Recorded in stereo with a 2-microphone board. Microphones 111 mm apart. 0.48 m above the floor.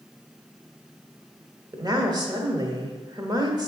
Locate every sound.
1.7 s a woman speaking: 40° right (ahead or behind), 1.2 m